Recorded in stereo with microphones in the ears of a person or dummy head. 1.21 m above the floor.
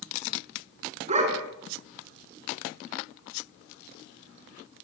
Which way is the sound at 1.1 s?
45° right (ahead or behind).